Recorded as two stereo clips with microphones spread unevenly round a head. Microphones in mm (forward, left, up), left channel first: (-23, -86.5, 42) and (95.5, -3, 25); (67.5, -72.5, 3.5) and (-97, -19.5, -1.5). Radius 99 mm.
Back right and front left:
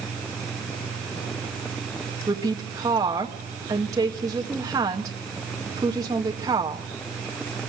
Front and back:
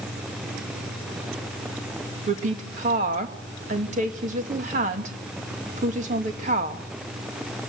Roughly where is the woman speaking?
Left.